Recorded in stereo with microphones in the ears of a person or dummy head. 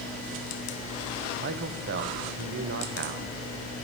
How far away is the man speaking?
About 0.7 m.